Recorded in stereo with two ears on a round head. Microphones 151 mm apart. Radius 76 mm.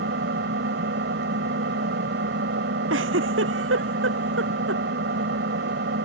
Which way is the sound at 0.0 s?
75° right (ahead or behind).